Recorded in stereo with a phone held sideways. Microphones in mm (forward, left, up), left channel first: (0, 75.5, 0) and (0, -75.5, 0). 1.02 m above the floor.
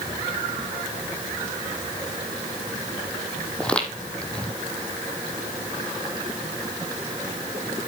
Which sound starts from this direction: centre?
Footsteps, at 3.6 s.